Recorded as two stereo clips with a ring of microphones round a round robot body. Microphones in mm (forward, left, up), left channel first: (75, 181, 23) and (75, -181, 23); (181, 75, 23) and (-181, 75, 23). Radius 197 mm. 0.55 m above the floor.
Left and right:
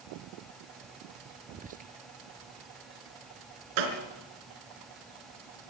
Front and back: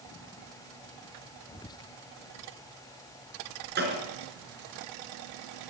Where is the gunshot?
115° right, 4.5 m.